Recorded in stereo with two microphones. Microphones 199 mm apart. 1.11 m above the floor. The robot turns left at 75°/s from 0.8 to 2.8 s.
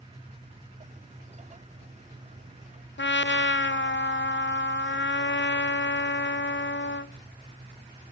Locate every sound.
3.0 s a trumpet: 65° left (ahead or behind), 0.5 m